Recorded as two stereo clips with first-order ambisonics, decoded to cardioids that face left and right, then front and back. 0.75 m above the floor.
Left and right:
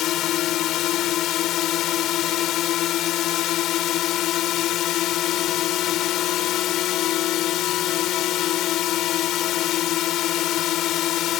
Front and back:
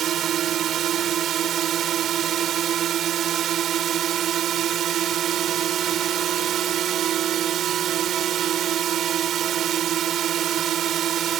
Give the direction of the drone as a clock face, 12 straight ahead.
8 o'clock.